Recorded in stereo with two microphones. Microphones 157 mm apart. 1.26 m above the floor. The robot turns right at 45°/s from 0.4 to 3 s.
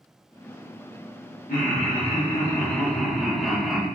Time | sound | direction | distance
1.5 | laughter | 115° left | 1.2 m